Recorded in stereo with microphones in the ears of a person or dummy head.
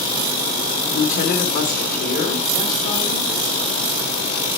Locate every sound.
0.9 s a woman speaking: 50° left (ahead or behind), 2 m